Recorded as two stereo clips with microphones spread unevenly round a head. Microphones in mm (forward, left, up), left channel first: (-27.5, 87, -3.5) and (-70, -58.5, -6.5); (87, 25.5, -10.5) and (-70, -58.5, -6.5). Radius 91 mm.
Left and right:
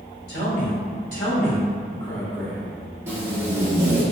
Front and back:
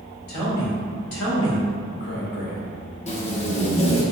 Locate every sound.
0.3 s a man speaking: 30° left, 1.8 m; by 2.8 s 30° right, 0.7 m
3.1 s tape being pulled: 30° right, 0.9 m